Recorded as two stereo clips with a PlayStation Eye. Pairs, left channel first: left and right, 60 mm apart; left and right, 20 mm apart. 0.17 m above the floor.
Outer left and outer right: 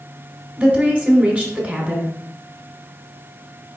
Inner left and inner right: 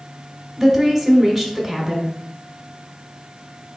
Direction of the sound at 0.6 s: 20° right (ahead or behind).